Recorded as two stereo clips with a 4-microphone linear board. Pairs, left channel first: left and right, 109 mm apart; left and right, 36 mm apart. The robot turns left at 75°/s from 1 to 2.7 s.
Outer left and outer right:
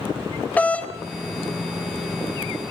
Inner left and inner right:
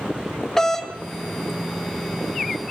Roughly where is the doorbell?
Centre.